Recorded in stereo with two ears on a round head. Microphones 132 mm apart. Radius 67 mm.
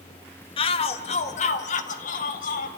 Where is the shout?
35° left (ahead or behind), 1.3 m; by 2.7 s 60° left (ahead or behind), 2 m.